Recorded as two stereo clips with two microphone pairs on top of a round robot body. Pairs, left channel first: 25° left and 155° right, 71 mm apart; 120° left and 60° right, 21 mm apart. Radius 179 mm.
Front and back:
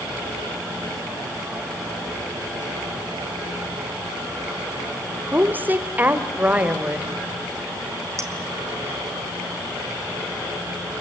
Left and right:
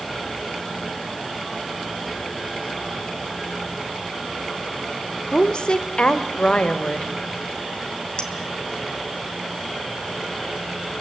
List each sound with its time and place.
5.3 s a woman speaking: 150° left, 2 m; by 7.1 s 135° left, 3 m
8.2 s a clink: 165° left, 2.5 m